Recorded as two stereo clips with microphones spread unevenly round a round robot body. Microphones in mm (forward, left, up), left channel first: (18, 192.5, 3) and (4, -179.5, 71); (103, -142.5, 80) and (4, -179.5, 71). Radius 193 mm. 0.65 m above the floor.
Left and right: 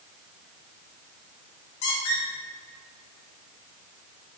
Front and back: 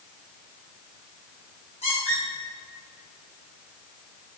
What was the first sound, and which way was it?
A squeak, 80° left.